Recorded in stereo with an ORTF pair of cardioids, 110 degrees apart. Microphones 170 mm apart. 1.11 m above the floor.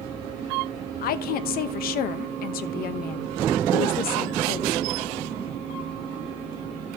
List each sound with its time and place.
1.0 s a woman speaking: 65° left, 1.0 m